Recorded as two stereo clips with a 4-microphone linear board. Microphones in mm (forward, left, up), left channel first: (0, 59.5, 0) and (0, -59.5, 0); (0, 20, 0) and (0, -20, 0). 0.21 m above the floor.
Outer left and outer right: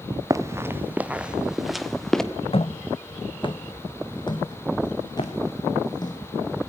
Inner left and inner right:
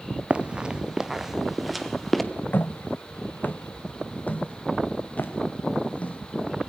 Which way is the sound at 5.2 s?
70° left (ahead or behind).